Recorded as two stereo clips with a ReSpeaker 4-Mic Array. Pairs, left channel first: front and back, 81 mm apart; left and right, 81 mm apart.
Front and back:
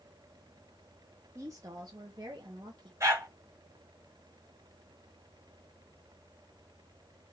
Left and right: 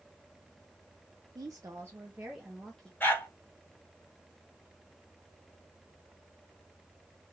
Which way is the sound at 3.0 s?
145° left.